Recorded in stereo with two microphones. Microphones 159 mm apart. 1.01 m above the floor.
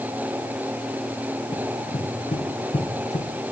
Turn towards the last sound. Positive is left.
turn(degrees=45)  # may be behind; listen again after turning